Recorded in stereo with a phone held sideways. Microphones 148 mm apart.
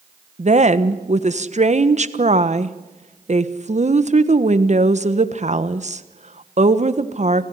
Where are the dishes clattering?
No dishes clattering in this recording.